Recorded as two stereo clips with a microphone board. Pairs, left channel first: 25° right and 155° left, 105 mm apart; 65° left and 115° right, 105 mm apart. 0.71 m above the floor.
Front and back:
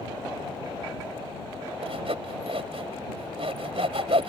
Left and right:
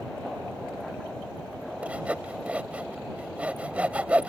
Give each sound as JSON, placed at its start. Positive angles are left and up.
{"t": 1.8, "sound": "sawing", "azimuth_deg": 170}